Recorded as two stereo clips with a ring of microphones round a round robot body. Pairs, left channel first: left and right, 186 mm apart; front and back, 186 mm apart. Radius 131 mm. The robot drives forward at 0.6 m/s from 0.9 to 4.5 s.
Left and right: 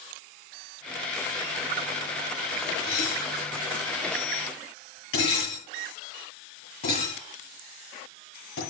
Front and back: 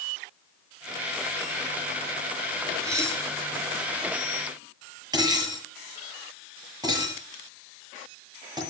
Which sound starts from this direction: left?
Dishes clattering, at 2.8 s.